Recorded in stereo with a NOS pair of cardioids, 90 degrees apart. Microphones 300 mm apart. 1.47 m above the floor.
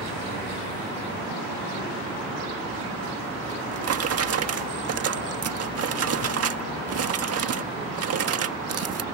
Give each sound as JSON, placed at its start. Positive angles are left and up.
{"t": 3.5, "sound": "a drawer", "azimuth_deg": -55}